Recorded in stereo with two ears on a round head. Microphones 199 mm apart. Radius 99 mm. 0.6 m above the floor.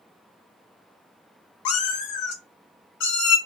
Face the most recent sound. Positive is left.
turn(degrees=80)